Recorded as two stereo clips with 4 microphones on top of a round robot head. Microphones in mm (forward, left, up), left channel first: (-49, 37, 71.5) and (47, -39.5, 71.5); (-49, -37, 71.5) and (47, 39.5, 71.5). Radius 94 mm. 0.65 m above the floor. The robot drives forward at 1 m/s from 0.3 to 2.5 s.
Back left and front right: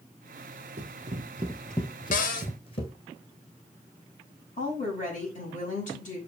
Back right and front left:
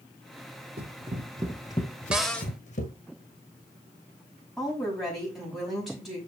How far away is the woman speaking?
About 5.5 m.